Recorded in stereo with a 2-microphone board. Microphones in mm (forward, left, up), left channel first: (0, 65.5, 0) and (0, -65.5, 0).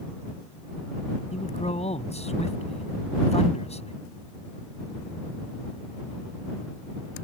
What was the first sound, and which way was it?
A man speaking, 60° left (ahead or behind).